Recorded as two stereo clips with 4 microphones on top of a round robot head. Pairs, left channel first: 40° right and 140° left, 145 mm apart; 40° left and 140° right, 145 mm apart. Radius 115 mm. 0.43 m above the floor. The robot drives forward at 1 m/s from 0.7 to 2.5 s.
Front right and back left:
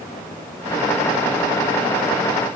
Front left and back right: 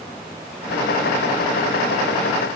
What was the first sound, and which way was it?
Only background noise.